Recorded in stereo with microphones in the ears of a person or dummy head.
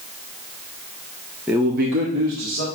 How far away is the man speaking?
About 0.5 m.